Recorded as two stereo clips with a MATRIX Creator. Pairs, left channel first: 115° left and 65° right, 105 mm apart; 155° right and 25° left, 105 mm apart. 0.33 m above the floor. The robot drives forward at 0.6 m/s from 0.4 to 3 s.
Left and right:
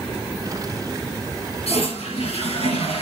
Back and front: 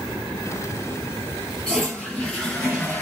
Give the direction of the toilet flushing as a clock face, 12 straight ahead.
8 o'clock.